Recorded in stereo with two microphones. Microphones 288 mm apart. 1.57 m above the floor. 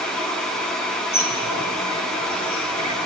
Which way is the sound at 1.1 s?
70° left (ahead or behind).